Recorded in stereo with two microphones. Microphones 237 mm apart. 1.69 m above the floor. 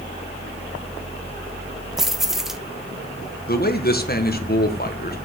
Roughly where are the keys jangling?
Centre.